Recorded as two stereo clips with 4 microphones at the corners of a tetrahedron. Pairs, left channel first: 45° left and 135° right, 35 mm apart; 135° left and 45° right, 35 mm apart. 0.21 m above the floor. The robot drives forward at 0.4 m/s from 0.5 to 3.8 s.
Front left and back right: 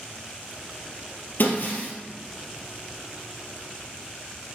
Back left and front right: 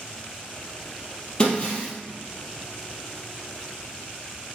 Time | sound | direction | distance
1.4 | breaking glass | 70° left | 2.5 m